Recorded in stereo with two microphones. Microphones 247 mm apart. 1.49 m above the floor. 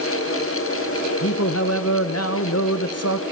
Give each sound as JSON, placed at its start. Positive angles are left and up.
{"t": 1.2, "sound": "a man speaking", "side_deg": 65, "distance_m": 1.1}